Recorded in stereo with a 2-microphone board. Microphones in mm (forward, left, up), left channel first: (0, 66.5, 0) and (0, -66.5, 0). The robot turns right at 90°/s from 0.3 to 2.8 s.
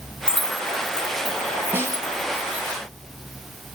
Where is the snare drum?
160° right, 0.7 m; by 2.1 s 130° right, 0.7 m.